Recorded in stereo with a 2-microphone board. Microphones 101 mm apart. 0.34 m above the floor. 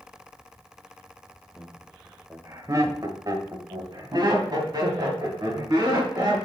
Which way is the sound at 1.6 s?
10° right (ahead or behind).